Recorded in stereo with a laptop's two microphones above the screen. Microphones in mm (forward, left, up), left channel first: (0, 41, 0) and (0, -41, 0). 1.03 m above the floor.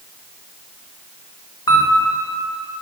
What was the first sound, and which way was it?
A camera shutter, 55° left (ahead or behind).